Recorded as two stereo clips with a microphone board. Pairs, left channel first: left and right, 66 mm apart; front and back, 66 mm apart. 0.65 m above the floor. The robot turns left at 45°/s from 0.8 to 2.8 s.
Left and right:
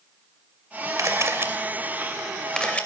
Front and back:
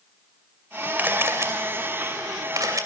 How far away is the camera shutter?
About 2.5 m.